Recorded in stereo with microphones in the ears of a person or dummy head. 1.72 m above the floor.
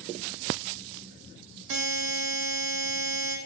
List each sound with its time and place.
1.7 s a buzzer: 80° right, 0.6 m